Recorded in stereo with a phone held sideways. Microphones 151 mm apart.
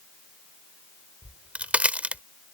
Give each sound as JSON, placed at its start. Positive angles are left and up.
{"t": 1.2, "sound": "a crack", "side_deg": -10}